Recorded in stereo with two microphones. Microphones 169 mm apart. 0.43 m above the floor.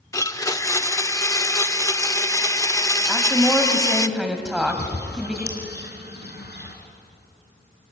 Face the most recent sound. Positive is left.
turn(degrees=80)